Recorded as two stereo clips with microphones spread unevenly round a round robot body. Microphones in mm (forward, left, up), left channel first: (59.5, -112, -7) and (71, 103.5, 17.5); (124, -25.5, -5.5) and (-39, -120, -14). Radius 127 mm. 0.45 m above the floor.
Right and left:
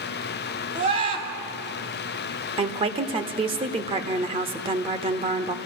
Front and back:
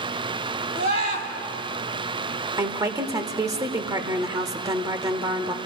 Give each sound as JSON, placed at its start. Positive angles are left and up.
{"t": 0.8, "sound": "a scream", "azimuth_deg": 150, "distance_m": 2.5}
{"t": 2.6, "sound": "a woman speaking", "azimuth_deg": 150, "distance_m": 0.9}